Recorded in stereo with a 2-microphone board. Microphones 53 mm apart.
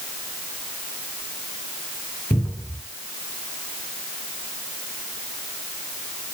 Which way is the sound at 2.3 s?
35° left (ahead or behind).